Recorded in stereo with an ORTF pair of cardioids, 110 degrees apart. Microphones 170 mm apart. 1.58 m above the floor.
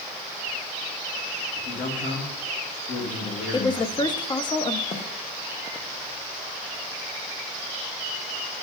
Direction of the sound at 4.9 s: 35° left.